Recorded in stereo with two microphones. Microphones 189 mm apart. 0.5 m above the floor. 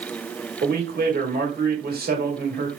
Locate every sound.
0.6 s a man speaking: 55° right (ahead or behind), 1.2 m